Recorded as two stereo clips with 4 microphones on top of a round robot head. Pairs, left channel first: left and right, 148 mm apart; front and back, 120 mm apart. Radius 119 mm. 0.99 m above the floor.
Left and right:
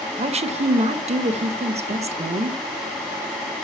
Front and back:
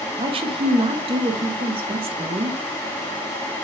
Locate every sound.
0.2 s a woman speaking: 135° right, 1.0 m